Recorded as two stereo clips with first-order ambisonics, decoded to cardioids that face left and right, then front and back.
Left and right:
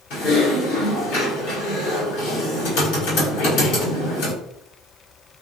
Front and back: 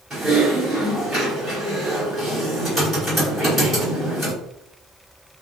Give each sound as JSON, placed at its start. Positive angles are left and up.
{"t": 0.1, "sound": "typing on a keyboard", "azimuth_deg": 85, "distance_m": 2.0}